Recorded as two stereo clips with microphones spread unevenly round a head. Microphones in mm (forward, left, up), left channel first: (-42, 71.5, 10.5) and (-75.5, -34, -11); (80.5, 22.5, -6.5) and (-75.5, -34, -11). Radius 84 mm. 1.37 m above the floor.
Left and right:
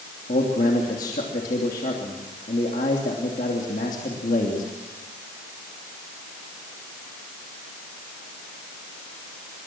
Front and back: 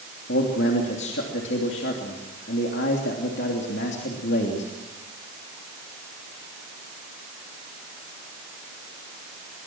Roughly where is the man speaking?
Ahead left.